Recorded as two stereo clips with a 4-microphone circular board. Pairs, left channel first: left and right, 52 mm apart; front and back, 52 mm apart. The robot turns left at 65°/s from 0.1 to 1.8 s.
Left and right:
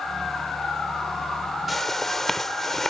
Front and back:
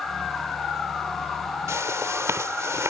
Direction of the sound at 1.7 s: Straight behind.